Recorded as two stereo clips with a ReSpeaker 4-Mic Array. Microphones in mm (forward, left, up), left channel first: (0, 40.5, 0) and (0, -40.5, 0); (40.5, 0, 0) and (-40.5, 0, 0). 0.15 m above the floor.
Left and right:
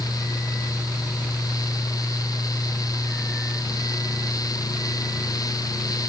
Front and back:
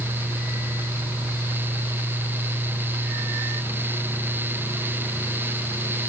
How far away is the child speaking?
No child speaking in this recording.